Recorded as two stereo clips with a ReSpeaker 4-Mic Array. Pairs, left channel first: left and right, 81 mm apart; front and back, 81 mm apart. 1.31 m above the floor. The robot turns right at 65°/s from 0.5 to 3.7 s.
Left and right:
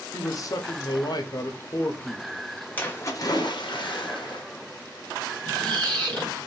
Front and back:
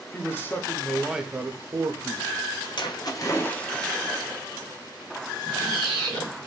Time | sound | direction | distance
0.1 | a man speaking | 60° left | 0.7 m
2.8 | a splash | 20° left | 0.9 m
5.5 | a squeak | 15° left | 1.6 m